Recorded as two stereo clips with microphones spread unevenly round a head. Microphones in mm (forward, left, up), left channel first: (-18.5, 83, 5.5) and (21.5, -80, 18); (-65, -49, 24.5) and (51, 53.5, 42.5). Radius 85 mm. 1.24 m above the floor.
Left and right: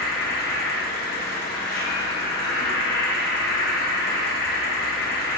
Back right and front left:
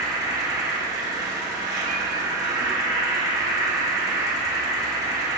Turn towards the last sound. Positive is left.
turn(degrees=110)